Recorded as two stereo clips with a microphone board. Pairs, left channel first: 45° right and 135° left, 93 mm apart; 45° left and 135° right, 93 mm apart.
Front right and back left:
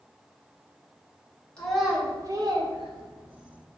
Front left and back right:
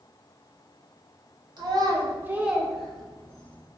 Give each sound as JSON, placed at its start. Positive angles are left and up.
{"t": 1.6, "sound": "a child speaking", "azimuth_deg": -125, "distance_m": 0.6}